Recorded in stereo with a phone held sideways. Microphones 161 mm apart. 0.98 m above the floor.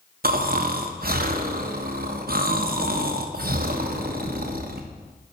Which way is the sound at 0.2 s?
70° right (ahead or behind).